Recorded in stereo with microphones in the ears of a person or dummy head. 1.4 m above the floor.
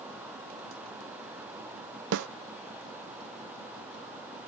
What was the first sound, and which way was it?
A snare drum, 60° right (ahead or behind).